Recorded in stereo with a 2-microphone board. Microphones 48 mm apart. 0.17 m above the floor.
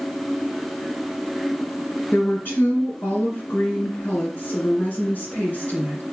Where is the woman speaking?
50° left (ahead or behind), 2.5 m.